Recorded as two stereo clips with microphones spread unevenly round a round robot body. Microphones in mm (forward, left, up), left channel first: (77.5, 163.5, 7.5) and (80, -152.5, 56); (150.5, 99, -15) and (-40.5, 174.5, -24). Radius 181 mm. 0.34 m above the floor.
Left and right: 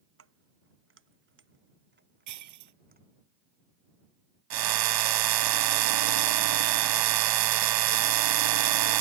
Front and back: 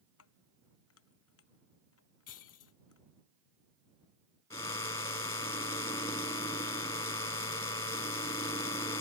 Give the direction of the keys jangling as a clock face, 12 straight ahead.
1 o'clock.